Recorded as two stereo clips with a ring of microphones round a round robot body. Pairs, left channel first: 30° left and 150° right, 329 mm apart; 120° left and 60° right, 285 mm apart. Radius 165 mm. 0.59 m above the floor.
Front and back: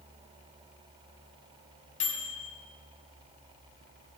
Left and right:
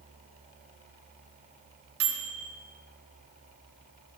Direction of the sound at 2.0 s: 35° right.